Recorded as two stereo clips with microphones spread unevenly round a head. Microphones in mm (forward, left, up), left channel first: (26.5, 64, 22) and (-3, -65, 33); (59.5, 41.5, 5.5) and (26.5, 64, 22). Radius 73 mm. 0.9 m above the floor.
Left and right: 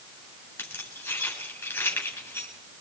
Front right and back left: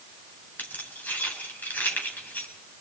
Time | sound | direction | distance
0.6 | keys jangling | 5° left | 9 m